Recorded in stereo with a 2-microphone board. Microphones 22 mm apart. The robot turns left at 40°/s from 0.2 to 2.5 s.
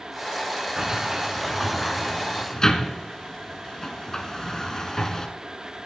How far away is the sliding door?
About 1.1 m.